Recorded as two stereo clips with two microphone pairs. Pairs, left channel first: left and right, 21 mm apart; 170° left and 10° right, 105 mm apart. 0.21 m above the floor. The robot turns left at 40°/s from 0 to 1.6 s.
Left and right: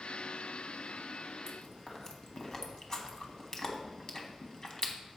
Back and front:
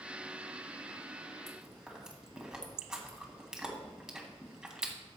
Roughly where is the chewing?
Left.